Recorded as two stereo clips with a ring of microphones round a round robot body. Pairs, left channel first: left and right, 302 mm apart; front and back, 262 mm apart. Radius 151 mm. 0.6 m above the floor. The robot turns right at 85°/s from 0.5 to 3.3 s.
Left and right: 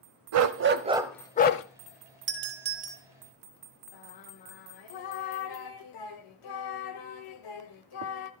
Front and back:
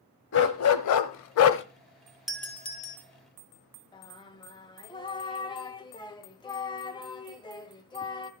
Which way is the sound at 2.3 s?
95° right.